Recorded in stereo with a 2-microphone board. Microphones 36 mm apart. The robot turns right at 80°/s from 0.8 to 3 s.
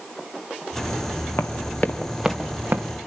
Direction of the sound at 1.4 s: 85° left.